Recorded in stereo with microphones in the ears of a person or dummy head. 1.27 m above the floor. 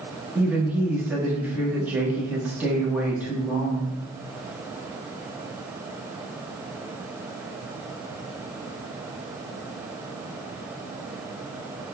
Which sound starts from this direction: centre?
A woman speaking, at 0.3 s.